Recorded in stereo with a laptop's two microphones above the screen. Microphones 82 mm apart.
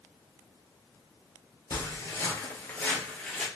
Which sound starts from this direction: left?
Footsteps, at 1.7 s.